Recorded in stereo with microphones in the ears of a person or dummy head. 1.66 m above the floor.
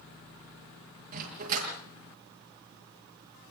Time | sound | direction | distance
1.1 | a dog barking | 40° right (ahead or behind) | 7 m